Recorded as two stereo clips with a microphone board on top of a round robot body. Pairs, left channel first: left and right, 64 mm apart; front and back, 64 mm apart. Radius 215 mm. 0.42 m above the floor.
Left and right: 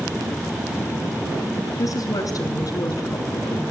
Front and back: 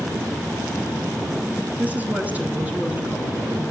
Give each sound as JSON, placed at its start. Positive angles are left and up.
{"t": 1.8, "sound": "a woman speaking", "azimuth_deg": 115, "distance_m": 4.0}